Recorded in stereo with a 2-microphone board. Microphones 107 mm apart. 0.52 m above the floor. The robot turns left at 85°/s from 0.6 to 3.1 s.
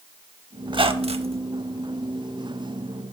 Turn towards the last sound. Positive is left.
turn(degrees=105)